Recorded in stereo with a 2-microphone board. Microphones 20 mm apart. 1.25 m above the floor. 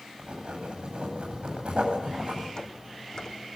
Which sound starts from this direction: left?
Footsteps, at 2.6 s.